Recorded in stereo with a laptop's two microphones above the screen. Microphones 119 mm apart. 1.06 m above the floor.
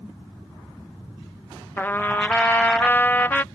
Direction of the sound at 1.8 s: 15° left (ahead or behind).